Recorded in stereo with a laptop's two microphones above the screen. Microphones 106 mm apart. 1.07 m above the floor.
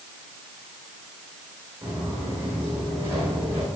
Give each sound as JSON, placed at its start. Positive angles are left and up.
{"t": 1.8, "sound": "footsteps", "side_deg": -25, "distance_m": 6.5}